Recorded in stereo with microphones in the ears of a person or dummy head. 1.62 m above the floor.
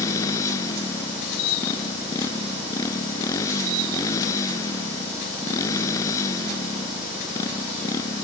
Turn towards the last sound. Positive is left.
turn(degrees=20)  # may be behind; listen again after turning